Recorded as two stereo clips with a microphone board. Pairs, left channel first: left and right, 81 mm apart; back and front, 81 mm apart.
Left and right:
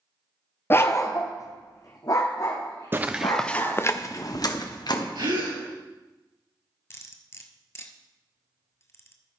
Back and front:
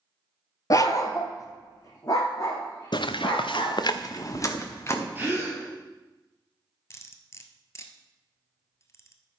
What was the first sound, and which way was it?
A dog barking, 145° left.